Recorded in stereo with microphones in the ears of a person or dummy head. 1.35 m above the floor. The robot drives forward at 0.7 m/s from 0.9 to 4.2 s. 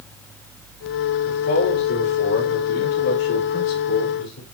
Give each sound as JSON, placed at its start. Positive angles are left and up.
{"t": 1.2, "sound": "a man speaking", "side_deg": 80, "distance_m": 4.5}